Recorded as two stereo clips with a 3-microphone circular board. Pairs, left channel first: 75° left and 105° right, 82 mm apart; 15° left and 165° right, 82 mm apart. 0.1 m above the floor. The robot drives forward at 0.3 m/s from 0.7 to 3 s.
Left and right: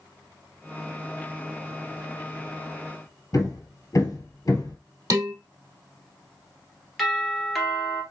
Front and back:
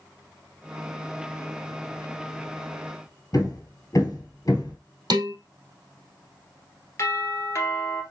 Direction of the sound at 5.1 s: 145° right.